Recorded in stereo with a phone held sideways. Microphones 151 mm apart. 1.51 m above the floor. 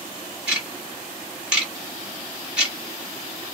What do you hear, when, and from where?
0.5 s ticking: 5° right (ahead or behind), 1.2 m